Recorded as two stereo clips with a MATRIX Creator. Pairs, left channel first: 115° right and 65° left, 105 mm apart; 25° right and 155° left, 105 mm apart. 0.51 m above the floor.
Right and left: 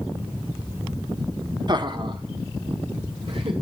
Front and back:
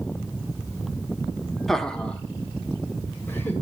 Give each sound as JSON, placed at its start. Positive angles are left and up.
{"t": 1.7, "sound": "laughter", "azimuth_deg": 65, "distance_m": 0.9}